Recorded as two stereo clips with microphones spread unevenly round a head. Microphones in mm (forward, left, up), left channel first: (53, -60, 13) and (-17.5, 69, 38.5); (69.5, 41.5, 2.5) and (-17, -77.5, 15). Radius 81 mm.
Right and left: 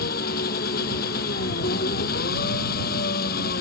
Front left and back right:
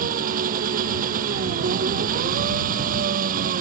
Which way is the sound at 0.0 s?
95° right.